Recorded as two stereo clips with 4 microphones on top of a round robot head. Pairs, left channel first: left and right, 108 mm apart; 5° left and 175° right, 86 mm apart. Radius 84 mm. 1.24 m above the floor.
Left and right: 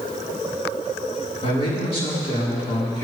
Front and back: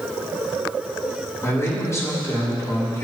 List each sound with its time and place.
1.4 s a man speaking: 60° left, 4.5 m